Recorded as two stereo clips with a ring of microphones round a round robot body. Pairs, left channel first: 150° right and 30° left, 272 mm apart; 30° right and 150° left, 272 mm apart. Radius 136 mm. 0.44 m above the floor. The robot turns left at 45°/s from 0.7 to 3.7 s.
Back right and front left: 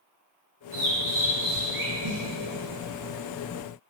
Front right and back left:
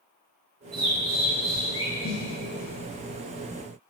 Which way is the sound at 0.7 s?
95° left.